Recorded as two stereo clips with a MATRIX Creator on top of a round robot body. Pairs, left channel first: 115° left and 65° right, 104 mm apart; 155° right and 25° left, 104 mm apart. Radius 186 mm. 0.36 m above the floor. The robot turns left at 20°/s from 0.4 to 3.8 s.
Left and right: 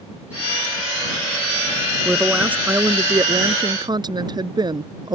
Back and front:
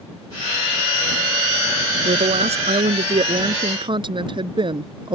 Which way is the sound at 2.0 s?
15° left.